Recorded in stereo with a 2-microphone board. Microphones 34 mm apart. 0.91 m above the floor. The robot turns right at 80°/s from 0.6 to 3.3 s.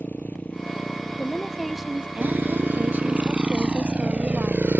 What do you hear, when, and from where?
0.0 s a motorcycle: 60° left (ahead or behind); by 4.8 s 75° right (ahead or behind)
1.2 s a woman speaking: 135° left; by 4.7 s 55° right